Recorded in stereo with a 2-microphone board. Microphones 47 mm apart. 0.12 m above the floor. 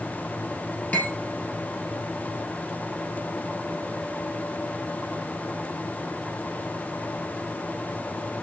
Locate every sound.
0.9 s cutlery clinking: 35° left (ahead or behind), 1.5 m